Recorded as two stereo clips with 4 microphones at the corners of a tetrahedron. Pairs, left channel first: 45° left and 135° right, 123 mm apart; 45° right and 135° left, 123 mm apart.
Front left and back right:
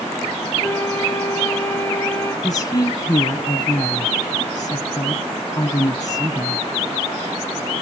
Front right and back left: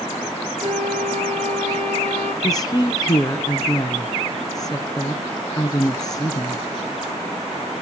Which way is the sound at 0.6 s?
120° left.